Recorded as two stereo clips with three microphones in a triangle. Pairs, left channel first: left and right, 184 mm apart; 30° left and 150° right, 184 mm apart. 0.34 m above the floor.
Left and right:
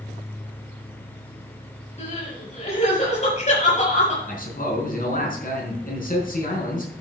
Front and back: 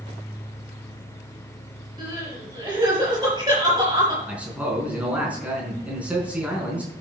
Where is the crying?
140° left, 6.5 m.